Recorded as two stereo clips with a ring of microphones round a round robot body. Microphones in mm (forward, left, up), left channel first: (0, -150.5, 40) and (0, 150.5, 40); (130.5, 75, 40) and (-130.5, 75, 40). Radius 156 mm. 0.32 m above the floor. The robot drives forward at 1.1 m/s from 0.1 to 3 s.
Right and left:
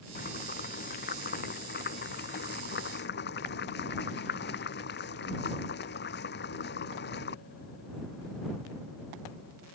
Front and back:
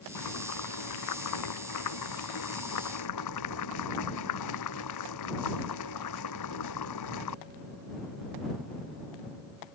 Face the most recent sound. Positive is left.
turn(degrees=-30)